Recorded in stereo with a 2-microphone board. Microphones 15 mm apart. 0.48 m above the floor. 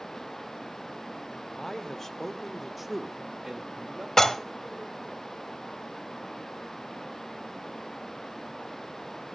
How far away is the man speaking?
About 1.5 m.